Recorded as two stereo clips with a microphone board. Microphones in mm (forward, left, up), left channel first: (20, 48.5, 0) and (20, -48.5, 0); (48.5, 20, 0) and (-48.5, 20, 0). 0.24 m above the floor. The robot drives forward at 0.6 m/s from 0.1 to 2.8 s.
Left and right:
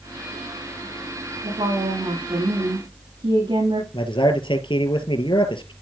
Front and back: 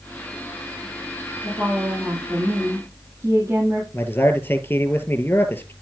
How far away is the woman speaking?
About 8 m.